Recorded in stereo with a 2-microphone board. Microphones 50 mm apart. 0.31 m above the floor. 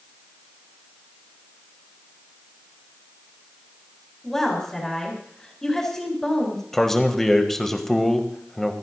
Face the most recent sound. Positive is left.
turn(degrees=10)  # may be behind; listen again after turning